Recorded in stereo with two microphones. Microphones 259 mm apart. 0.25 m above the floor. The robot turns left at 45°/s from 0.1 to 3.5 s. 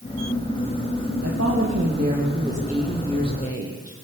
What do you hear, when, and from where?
1.2 s a woman speaking: 110° right, 8.5 m; by 3.9 s 150° left, 8.5 m